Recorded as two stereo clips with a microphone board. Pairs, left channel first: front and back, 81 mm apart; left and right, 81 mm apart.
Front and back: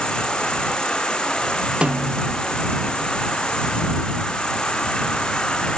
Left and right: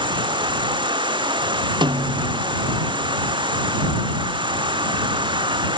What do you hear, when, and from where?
0.0 s an insect: 80° right
1.8 s a snare drum: 105° right